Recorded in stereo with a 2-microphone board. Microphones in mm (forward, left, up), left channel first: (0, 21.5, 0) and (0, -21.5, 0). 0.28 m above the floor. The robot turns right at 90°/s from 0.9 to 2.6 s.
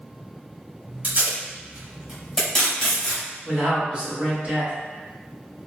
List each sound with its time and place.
1.0 s tape being pulled: 35° right (ahead or behind), 1.3 m; by 3.2 s 15° left (ahead or behind), 1.3 m
3.5 s a man speaking: 30° right (ahead or behind), 1.4 m